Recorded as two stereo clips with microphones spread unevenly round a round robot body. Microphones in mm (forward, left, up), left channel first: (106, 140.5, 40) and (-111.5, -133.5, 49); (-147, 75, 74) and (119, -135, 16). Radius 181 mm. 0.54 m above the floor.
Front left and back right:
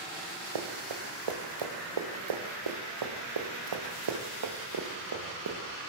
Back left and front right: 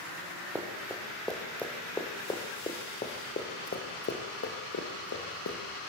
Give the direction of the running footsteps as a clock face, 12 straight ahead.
4 o'clock.